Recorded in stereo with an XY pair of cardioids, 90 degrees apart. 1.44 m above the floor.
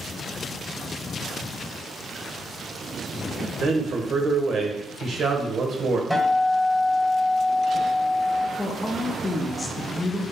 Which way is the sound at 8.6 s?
35° left.